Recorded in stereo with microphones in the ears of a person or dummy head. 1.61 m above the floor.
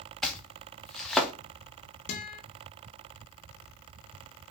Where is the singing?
I don't hear singing.